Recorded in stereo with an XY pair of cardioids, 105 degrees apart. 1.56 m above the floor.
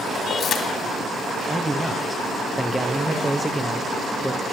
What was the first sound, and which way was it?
Keys jangling, 55° left.